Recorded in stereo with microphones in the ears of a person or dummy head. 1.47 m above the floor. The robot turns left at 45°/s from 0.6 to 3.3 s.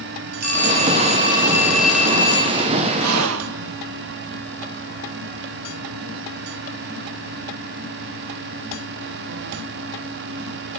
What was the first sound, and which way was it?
A phone ringing, 125° right.